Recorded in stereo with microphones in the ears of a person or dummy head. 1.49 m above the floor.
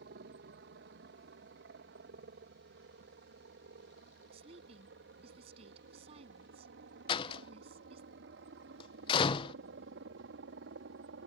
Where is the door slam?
30° left (ahead or behind).